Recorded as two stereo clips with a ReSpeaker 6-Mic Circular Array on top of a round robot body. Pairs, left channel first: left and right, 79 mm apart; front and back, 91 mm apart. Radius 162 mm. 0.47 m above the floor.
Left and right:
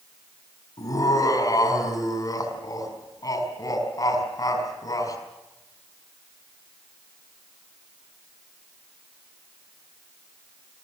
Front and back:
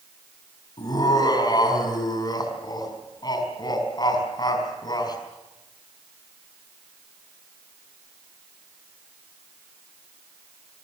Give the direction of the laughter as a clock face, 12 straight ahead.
11 o'clock.